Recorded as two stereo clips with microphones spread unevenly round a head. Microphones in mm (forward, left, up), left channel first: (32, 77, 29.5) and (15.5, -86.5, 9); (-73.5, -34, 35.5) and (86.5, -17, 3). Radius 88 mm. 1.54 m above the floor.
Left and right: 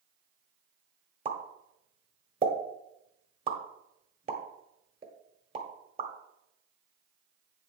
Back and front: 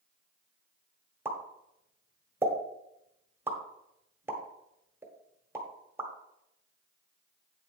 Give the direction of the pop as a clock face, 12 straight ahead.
3 o'clock.